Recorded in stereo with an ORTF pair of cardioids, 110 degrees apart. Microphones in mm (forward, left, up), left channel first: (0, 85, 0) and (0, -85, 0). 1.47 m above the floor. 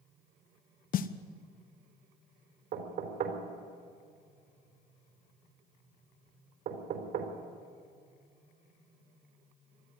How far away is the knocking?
About 4 m.